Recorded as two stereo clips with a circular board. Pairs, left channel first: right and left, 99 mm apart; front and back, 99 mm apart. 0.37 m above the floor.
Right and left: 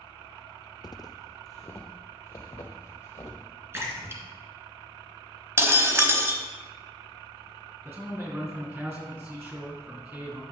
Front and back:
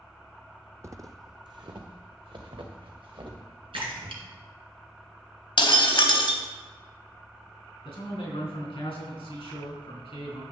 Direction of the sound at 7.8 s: 25° left.